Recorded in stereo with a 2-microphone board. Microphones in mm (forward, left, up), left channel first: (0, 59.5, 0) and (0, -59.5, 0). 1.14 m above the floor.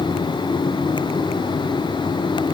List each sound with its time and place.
Only background noise.